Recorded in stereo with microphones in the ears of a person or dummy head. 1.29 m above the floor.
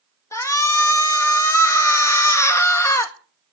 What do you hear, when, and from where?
0.3 s a shout: 25° left (ahead or behind), 1.6 m